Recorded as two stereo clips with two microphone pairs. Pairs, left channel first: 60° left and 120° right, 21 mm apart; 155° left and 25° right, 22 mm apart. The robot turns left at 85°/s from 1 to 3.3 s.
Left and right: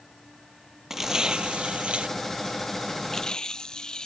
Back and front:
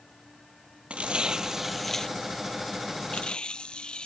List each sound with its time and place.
0.9 s tearing paper: 45° right; by 4.1 s 115° left